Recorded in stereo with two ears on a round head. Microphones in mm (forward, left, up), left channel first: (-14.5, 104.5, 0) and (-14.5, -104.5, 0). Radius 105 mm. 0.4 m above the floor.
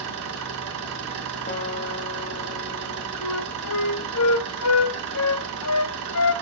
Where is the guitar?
35° left (ahead or behind), 1.6 m.